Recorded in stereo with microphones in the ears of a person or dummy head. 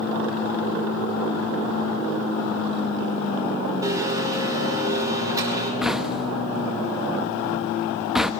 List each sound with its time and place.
3.8 s a blender: 20° right (ahead or behind), 5 m
5.8 s knocking: centre (ahead or behind), 1.1 m